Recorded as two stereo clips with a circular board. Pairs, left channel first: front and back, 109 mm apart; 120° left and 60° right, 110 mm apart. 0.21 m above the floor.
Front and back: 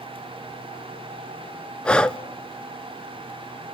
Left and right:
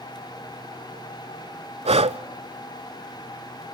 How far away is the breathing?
About 0.6 m.